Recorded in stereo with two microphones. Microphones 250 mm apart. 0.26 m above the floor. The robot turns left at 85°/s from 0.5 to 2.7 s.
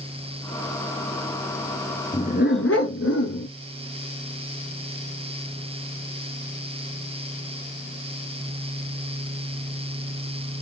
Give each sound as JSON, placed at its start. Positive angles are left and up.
{"t": 2.1, "sound": "a dog barking", "azimuth_deg": 160, "distance_m": 1.3}